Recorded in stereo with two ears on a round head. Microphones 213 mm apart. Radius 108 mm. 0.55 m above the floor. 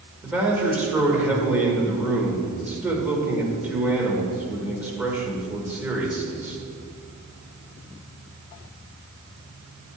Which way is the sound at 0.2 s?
5° right (ahead or behind).